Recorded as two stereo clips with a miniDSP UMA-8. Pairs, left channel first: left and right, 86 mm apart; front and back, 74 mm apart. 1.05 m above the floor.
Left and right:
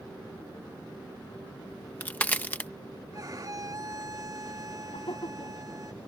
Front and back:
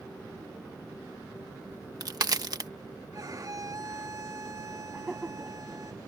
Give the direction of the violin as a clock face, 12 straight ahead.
5 o'clock.